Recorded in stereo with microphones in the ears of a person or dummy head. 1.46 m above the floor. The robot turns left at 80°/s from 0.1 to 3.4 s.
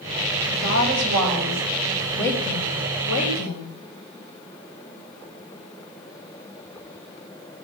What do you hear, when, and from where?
0.5 s a woman speaking: 50° right, 6.5 m; by 3.7 s 80° left, 6.5 m